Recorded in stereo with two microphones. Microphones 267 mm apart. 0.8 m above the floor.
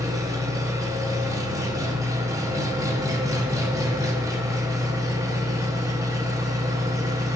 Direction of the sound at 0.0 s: 10° right (ahead or behind).